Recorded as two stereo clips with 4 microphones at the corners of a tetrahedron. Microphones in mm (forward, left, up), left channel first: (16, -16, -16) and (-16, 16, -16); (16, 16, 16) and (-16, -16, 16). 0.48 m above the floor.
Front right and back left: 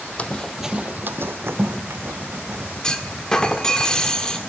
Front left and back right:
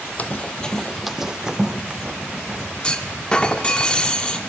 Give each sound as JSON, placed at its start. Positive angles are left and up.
{"t": 0.2, "sound": "running footsteps", "azimuth_deg": 5, "distance_m": 0.7}
{"t": 2.8, "sound": "a clunk", "azimuth_deg": 5, "distance_m": 1.0}